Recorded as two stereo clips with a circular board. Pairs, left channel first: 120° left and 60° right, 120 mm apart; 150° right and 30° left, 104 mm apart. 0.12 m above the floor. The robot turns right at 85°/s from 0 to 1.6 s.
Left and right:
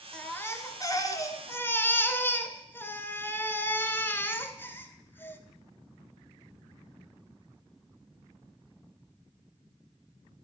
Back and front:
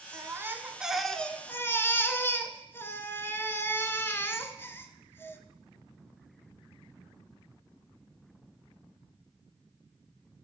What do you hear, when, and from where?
0.1 s a baby crying: 45° left, 0.8 m; by 5.4 s 170° left, 0.8 m